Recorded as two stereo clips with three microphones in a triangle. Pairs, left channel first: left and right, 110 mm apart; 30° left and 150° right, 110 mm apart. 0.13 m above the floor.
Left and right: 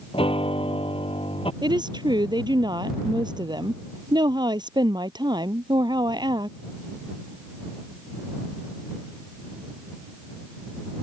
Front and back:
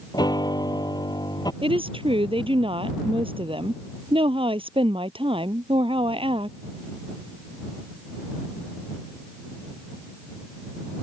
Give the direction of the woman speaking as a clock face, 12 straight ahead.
4 o'clock.